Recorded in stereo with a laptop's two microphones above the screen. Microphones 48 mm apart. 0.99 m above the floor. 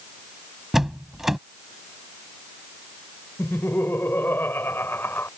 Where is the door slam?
5° right (ahead or behind).